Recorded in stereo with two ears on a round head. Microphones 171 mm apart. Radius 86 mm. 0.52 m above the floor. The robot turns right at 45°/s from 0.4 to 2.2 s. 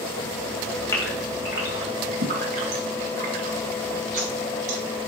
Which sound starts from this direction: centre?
A gasp, at 0.9 s.